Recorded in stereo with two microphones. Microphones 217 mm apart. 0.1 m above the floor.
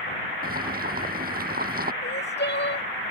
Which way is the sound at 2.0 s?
55° left (ahead or behind).